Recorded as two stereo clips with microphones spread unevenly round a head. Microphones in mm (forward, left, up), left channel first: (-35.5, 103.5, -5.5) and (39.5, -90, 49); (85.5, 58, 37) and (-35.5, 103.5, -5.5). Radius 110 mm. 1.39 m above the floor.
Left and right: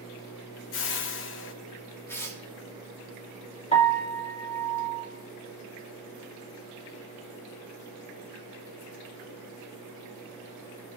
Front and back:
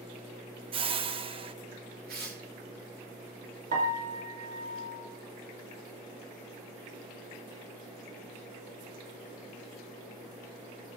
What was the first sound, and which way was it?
A whoosh, 110° left.